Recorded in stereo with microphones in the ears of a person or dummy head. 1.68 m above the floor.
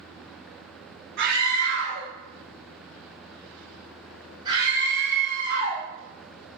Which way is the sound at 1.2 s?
65° right (ahead or behind).